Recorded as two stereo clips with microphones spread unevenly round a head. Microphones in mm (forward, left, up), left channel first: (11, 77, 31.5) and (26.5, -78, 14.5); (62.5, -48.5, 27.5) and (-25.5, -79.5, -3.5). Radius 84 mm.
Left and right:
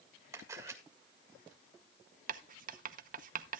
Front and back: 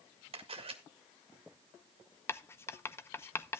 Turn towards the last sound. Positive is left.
turn(degrees=-45)